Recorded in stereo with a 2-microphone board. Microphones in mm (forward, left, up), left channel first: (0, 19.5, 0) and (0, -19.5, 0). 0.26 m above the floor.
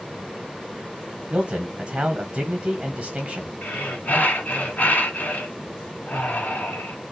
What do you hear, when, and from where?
1.3 s a man speaking: 30° right (ahead or behind), 1.5 m
3.6 s breathing: 50° left (ahead or behind), 1.3 m